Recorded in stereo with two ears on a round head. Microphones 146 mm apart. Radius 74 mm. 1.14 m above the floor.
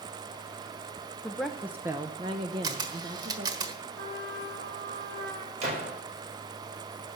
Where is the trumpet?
65° right (ahead or behind), 2.5 m.